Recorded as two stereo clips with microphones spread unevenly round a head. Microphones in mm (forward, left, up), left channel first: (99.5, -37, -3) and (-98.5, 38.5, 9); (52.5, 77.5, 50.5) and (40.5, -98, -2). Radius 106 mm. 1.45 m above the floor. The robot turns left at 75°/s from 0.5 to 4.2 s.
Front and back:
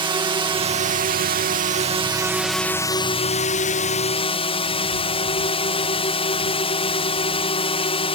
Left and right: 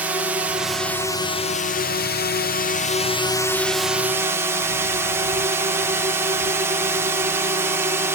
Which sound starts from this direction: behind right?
A drone, at 0.0 s.